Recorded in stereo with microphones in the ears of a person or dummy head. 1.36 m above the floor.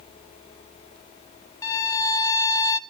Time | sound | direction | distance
1.6 | a violin | 20° left (ahead or behind) | 0.6 m